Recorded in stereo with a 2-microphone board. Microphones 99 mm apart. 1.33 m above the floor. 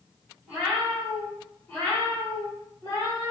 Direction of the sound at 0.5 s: 10° right (ahead or behind).